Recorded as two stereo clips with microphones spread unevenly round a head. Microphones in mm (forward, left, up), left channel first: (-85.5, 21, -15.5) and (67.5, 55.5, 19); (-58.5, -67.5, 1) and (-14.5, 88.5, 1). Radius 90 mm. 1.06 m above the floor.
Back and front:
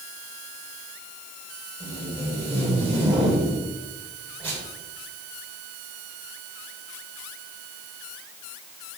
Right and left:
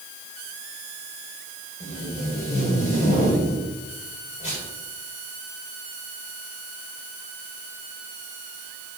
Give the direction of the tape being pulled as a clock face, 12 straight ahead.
2 o'clock.